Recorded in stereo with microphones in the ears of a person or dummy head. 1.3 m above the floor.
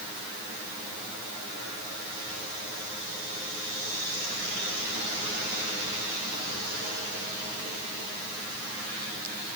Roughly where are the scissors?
No scissors in this recording.